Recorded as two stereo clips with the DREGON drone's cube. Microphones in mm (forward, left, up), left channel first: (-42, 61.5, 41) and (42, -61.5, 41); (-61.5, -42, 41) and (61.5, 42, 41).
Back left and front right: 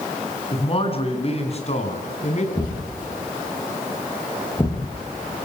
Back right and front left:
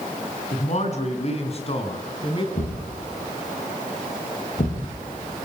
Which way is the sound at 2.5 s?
175° right.